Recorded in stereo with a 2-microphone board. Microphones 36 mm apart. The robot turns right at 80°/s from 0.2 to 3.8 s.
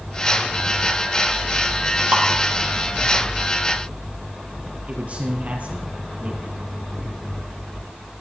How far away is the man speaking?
About 3.5 m.